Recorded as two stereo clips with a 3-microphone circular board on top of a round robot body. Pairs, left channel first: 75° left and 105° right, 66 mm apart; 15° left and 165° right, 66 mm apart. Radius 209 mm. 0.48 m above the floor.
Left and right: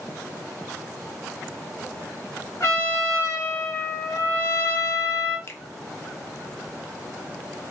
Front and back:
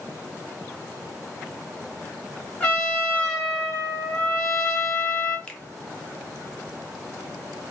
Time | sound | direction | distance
2.6 | a trumpet | 75° left | 1.6 m
5.5 | a finger snap | 80° left | 0.9 m